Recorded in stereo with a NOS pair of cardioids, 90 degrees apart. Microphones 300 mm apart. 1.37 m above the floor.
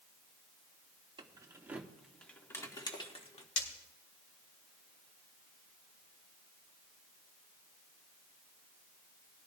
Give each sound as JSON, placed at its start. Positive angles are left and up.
{"t": 1.2, "sound": "keys jangling", "azimuth_deg": -15, "distance_m": 1.8}
{"t": 3.6, "sound": "breaking glass", "azimuth_deg": 50, "distance_m": 3.5}